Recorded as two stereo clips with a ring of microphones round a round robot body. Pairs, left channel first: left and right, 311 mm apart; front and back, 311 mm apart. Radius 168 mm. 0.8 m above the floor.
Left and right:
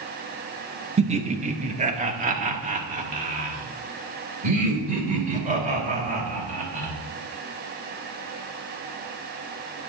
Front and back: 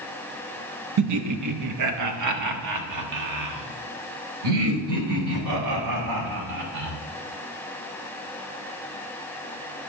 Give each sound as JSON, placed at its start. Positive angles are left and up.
{"t": 1.0, "sound": "laughter", "azimuth_deg": -160, "distance_m": 0.9}